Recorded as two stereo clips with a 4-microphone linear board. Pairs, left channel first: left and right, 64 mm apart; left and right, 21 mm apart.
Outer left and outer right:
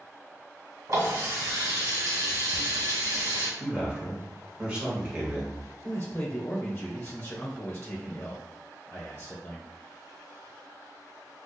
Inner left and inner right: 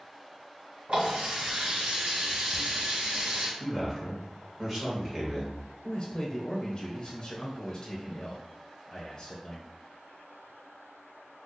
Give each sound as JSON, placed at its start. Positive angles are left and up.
{"t": 0.9, "sound": "a running tap", "side_deg": -65, "distance_m": 1.7}
{"t": 3.6, "sound": "a man speaking", "side_deg": -20, "distance_m": 1.4}
{"t": 5.8, "sound": "a man speaking", "side_deg": 30, "distance_m": 1.0}